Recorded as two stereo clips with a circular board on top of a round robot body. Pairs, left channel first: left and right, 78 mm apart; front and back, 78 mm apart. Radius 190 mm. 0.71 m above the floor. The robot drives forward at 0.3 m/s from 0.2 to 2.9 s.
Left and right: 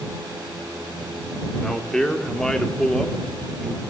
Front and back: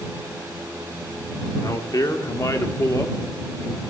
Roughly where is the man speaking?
Ahead.